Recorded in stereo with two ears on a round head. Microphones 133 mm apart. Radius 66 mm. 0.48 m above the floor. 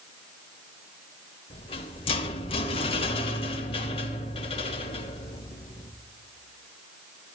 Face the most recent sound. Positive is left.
turn(degrees=40)  # may be behind; listen again after turning